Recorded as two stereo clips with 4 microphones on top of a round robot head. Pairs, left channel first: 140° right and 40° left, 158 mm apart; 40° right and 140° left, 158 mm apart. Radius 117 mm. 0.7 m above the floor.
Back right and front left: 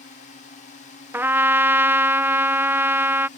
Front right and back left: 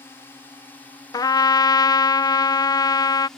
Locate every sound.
0.0 s a drone: 115° right; by 3.4 s 125° right
1.1 s a trumpet: 15° right